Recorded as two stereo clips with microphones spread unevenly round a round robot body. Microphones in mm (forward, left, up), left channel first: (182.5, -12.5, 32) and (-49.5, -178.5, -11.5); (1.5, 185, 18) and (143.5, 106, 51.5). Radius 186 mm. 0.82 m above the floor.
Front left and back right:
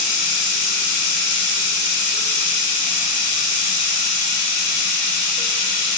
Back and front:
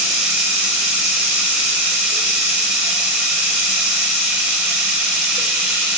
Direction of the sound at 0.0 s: 60° left.